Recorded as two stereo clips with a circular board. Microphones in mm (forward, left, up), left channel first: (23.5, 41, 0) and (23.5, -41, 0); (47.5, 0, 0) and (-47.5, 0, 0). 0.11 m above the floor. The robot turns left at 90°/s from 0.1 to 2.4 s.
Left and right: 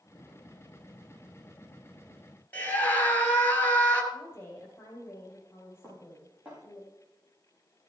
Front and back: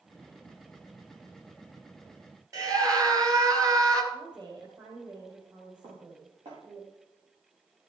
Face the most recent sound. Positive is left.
turn(degrees=-160)